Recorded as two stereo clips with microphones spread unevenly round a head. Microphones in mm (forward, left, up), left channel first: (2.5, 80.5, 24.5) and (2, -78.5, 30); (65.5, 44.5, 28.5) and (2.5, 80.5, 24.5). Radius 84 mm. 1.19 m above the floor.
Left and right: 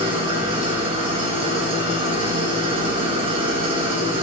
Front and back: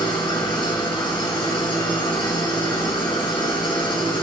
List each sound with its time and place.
0.0 s an engine running: 30° right, 6 m